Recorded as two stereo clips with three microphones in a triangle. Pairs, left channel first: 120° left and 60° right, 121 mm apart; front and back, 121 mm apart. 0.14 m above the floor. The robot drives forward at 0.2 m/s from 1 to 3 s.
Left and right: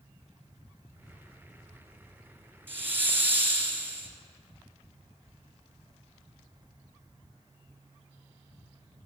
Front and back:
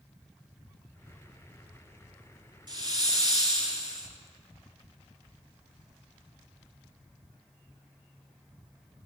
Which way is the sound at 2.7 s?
130° right.